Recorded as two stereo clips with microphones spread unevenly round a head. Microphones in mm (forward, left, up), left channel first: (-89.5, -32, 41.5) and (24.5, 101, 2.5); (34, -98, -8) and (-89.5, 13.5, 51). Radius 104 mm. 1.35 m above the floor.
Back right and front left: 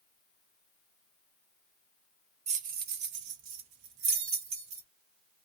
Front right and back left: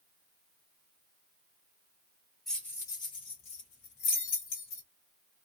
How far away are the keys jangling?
About 0.6 m.